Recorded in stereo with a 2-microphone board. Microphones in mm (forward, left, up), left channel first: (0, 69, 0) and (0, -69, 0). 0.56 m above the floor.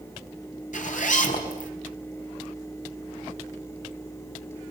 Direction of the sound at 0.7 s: 60° left (ahead or behind).